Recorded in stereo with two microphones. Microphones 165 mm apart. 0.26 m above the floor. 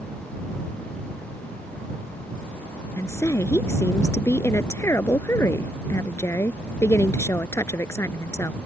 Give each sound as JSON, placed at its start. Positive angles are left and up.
{"t": 3.0, "sound": "a woman speaking", "side_deg": 15}